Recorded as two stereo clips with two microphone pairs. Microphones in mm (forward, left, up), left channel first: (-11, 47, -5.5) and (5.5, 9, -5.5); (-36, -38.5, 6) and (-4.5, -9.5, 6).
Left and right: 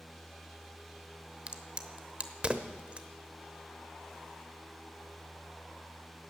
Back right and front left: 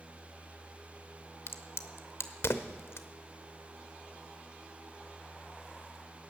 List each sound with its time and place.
1.5 s a crack: 130° right, 0.9 m